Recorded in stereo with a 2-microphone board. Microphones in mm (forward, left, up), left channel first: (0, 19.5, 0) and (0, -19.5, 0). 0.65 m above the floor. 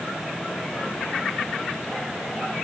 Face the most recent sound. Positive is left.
No sound to turn to.